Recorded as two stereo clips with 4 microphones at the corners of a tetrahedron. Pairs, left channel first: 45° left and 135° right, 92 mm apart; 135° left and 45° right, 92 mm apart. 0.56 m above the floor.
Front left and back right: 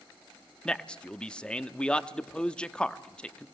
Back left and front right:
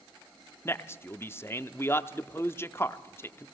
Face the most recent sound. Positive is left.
turn(degrees=120)